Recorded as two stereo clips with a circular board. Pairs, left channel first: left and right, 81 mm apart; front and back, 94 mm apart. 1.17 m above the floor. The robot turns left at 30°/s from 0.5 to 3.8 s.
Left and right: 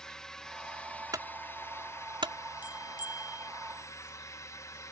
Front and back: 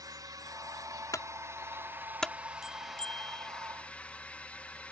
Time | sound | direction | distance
0.0 | a drone | 170° left | ?
1.1 | a clunk | 50° right | ?
2.6 | a bell | 95° left | ?